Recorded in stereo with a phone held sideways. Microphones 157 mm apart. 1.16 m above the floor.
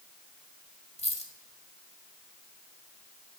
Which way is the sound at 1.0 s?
45° left (ahead or behind).